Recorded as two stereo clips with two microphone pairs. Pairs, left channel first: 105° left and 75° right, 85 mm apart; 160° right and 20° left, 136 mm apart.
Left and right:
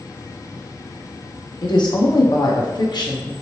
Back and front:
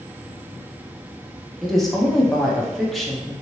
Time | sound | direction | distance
1.6 | a woman speaking | 110° left | 0.7 m